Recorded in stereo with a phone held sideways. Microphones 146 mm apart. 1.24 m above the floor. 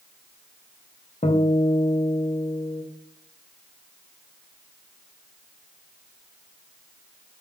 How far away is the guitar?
About 0.5 m.